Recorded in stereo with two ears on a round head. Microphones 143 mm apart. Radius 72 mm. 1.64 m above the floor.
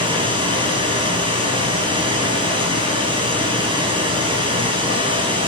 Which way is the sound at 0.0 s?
30° right (ahead or behind).